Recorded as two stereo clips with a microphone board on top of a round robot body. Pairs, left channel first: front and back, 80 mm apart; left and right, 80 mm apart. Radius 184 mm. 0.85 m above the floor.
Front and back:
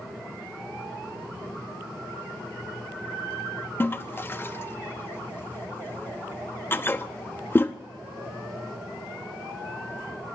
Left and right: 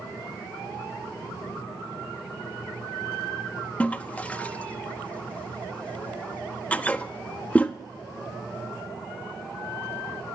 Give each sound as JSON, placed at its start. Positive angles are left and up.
{"t": 3.8, "sound": "a toilet flushing", "azimuth_deg": 35, "distance_m": 0.9}